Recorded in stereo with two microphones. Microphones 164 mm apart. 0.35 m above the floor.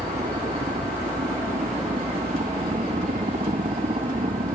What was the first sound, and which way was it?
A helicopter, 45° right (ahead or behind).